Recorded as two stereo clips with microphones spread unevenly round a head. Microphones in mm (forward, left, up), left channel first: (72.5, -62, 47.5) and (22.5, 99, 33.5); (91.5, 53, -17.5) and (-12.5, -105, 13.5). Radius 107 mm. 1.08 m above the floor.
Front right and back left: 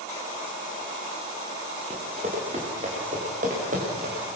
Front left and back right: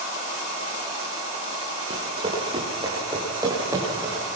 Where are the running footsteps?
170° left, 6.5 m; by 4.2 s 160° left, 8 m.